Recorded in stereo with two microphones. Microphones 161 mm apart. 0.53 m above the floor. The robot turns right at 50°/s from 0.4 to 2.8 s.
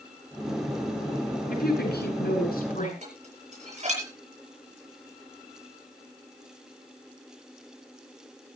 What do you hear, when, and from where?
1.5 s a woman speaking: 60° left, 8 m; by 2.9 s 125° left, 8 m
3.0 s dishes clattering: 45° right (ahead or behind), 8.5 m